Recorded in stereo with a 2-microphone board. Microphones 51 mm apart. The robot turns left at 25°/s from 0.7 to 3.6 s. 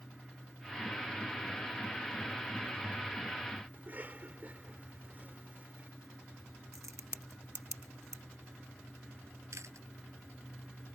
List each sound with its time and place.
3.7 s a cough: 35° right (ahead or behind)
6.7 s a crack: 75° right (ahead or behind)
9.5 s chewing: 70° right (ahead or behind)